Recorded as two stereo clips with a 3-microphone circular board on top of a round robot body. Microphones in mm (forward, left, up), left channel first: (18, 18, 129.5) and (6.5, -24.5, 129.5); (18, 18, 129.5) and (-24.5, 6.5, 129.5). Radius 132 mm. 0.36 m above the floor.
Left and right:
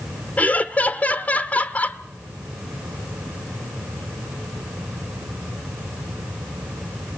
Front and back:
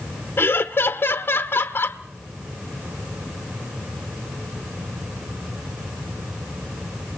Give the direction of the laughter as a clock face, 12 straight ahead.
11 o'clock.